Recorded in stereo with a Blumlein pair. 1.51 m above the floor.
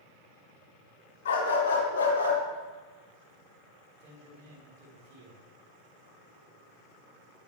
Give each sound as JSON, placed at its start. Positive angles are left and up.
{"t": 1.2, "sound": "a dog barking", "azimuth_deg": 60, "distance_m": 4.0}
{"t": 4.0, "sound": "a man speaking", "azimuth_deg": -50, "distance_m": 4.0}